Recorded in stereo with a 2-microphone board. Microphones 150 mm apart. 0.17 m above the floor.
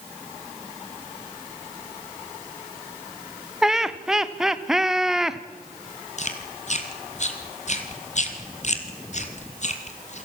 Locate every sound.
3.6 s laughter: 5° right (ahead or behind), 1.1 m
6.2 s chewing: 50° left (ahead or behind), 2.5 m